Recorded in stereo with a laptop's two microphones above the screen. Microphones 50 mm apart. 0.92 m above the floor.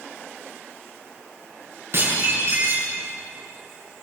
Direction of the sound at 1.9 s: 55° right (ahead or behind).